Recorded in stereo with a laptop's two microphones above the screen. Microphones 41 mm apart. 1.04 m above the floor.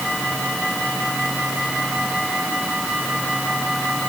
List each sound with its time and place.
Only background noise.